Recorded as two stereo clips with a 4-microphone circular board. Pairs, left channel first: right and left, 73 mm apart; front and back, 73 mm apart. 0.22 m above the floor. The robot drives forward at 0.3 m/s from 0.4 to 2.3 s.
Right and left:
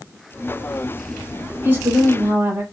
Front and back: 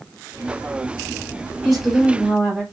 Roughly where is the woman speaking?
Left.